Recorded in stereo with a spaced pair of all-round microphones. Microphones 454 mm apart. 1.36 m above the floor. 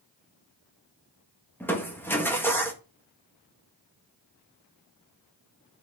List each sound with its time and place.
1.6 s crushing: 5° left (ahead or behind), 1.3 m